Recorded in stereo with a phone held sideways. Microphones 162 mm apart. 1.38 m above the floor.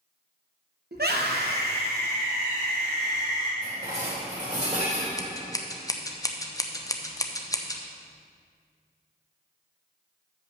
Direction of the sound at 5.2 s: 20° left (ahead or behind).